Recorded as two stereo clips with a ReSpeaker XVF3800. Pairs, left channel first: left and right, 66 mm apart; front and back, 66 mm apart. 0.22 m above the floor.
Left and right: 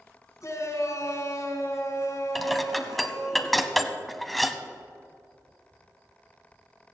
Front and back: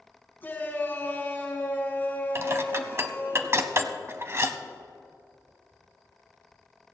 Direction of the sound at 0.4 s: 60° left.